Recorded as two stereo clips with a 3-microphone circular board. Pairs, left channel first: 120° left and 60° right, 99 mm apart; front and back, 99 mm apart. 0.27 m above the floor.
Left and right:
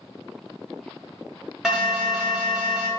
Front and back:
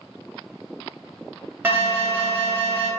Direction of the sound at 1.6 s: 140° right.